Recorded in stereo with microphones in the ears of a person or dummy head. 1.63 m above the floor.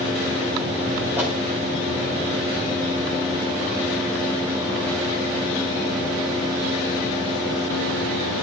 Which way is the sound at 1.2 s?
10° right (ahead or behind).